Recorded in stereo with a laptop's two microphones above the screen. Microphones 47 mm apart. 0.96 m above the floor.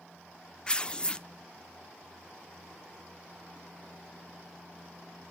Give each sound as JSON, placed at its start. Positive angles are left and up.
{"t": 0.7, "sound": "tearing paper", "side_deg": 25, "distance_m": 0.5}